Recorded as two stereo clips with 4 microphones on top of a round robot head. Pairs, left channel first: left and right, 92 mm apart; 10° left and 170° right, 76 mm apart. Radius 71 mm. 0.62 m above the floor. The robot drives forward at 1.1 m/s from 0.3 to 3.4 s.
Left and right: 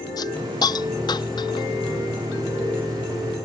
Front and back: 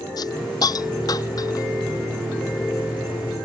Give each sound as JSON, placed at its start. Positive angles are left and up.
{"t": 0.2, "sound": "a hiss", "azimuth_deg": 45}